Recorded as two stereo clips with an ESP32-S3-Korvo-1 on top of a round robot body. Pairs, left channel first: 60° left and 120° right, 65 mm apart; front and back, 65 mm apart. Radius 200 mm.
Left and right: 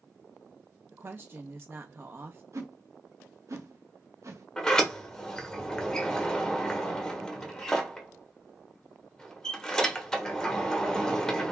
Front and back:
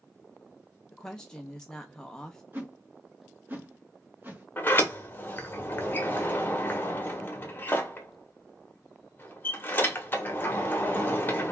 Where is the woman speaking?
75° right, 0.6 m.